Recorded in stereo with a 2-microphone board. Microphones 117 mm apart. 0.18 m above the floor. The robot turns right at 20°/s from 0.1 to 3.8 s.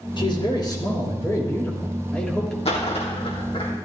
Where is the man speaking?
130° left, 4 m; by 2.5 s 175° left, 4 m.